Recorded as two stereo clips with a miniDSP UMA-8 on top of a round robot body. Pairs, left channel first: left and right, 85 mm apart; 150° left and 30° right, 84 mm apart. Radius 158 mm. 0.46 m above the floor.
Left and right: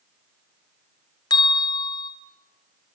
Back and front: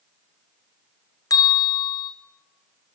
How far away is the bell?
About 3 m.